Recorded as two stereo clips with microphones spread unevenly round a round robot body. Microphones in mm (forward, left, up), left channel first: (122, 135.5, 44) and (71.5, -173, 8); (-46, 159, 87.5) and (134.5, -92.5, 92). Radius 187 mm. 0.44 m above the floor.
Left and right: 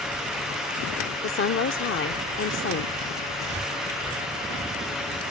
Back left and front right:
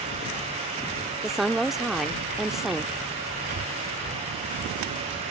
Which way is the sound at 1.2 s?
35° left.